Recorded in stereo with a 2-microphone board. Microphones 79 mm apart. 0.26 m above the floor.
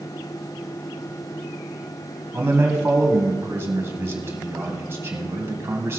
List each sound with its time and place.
2.3 s a man speaking: 30° right (ahead or behind), 1.8 m